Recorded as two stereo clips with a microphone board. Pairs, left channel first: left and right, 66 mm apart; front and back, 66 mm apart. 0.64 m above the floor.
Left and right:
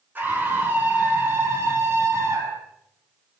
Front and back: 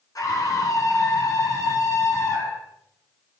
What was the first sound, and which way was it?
A scream, 30° right.